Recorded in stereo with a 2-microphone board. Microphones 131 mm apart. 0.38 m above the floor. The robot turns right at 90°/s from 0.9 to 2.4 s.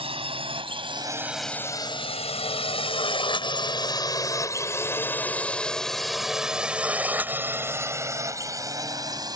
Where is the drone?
45° right (ahead or behind); by 9.4 s 30° right (ahead or behind).